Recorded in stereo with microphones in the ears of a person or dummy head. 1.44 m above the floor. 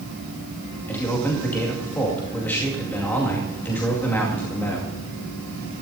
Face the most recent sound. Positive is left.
turn(degrees=15)  # may be behind; listen again after turning